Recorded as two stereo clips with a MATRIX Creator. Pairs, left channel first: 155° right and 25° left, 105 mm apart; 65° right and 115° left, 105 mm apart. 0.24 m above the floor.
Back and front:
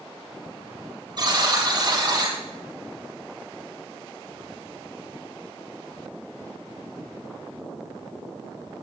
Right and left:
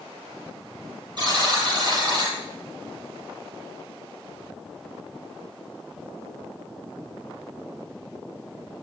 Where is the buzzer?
70° left, 6 m.